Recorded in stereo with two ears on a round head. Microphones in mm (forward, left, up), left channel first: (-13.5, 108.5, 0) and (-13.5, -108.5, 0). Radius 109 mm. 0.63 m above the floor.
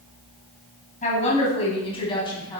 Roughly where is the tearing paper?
I don't hear tearing paper.